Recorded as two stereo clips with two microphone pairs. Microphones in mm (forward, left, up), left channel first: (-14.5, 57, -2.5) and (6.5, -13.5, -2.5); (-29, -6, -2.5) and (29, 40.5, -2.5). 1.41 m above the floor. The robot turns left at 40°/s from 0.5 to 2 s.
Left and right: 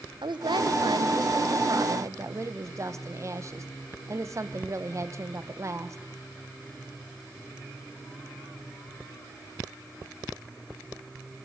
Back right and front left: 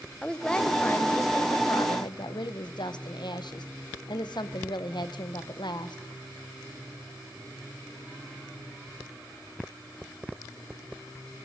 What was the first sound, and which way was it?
A woman speaking, 60° right.